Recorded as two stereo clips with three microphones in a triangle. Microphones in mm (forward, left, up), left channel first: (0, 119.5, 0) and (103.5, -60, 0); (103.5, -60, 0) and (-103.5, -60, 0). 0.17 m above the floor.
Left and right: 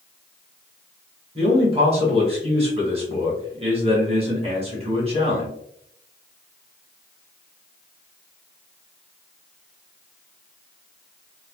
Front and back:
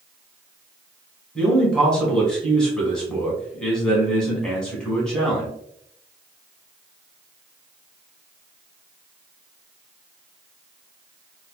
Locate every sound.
1.4 s a man speaking: 85° right, 1.2 m